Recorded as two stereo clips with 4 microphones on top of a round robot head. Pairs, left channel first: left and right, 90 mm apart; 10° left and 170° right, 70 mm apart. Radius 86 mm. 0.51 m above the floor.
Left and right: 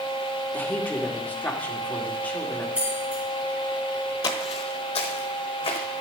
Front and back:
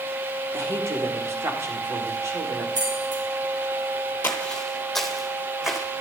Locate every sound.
0.5 s a woman speaking: 160° left, 1.8 m
2.8 s keys jangling: 165° right, 3 m
4.2 s footsteps: 65° left, 0.7 m; by 5.8 s 105° left, 1.9 m